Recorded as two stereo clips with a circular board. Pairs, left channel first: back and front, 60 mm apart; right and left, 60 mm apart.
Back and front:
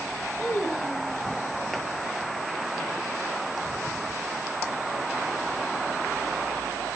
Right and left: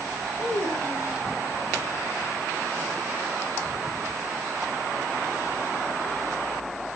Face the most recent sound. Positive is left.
turn(degrees=-120)